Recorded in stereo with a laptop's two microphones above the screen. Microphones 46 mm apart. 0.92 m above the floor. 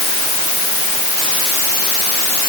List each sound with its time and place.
Only background noise.